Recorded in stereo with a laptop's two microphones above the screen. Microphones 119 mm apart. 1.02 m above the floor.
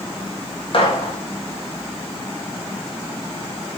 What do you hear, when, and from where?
0.7 s a gunshot: 55° left (ahead or behind), 1.2 m